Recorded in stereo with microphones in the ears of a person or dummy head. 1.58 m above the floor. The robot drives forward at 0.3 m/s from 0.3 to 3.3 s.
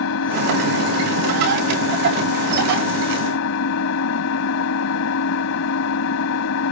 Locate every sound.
0.0 s an engine running: 75° left (ahead or behind)